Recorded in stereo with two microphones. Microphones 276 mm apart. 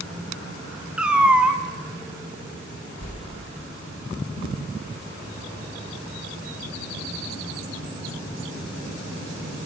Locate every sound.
1.0 s a cat meowing: 5° right (ahead or behind), 1.4 m
3.0 s a whoosh: 65° right (ahead or behind), 5.5 m